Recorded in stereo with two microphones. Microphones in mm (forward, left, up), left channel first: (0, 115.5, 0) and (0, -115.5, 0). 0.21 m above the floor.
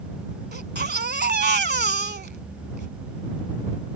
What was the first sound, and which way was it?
A baby crying, 50° right (ahead or behind).